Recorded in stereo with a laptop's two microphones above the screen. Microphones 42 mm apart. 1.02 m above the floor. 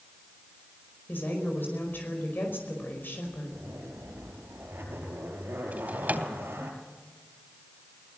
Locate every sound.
1.1 s a woman speaking: 60° left (ahead or behind), 5 m
3.5 s a zipper: 85° right, 5.5 m
5.7 s a drawer: 40° right (ahead or behind), 3 m